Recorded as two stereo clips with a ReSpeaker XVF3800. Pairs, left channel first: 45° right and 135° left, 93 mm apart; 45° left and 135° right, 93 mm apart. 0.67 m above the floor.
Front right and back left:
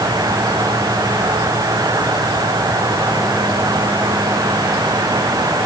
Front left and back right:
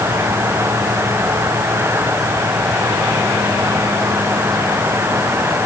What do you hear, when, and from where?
Only background noise.